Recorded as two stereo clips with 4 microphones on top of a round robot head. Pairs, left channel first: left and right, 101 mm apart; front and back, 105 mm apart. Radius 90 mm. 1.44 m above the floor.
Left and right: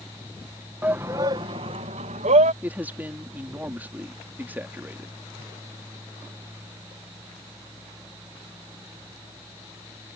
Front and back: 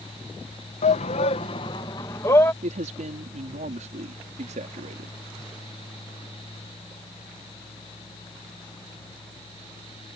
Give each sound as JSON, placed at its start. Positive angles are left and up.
{"t": 0.8, "sound": "a shout", "azimuth_deg": -10}
{"t": 2.6, "sound": "a man speaking", "azimuth_deg": -165}